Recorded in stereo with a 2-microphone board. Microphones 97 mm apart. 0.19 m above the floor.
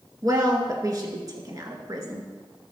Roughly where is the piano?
No piano in this recording.